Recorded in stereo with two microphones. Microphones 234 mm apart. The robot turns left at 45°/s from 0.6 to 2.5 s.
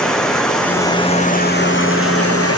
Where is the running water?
175° left, 1.6 m; by 2.6 s 90° left, 1.6 m.